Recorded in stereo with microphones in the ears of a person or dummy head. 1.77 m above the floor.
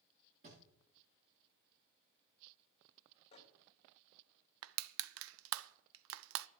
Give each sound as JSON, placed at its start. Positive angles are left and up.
{"t": 0.4, "sound": "a thud", "side_deg": -40, "distance_m": 9.0}
{"t": 3.3, "sound": "a microwave", "side_deg": 25, "distance_m": 2.0}
{"t": 4.6, "sound": "crushing", "side_deg": -75, "distance_m": 0.5}